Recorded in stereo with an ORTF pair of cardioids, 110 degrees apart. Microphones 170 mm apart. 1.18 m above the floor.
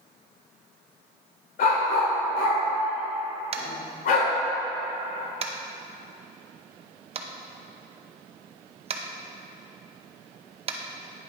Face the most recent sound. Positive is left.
turn(degrees=-35)